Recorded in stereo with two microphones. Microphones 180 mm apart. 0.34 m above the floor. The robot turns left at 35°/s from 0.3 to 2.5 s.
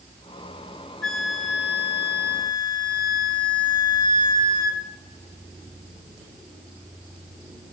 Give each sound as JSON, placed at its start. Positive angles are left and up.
{"t": 1.0, "sound": "a flute", "azimuth_deg": 10, "distance_m": 1.6}